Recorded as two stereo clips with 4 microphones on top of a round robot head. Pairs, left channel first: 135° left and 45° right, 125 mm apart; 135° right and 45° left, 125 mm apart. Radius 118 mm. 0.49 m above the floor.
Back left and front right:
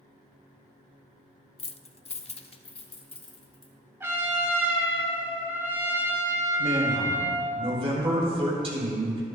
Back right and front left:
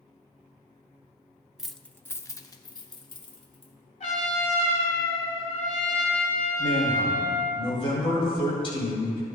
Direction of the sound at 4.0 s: 115° right.